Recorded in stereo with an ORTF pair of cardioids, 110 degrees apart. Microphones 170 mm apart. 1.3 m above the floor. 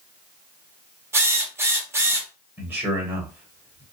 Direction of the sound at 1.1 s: 15° right.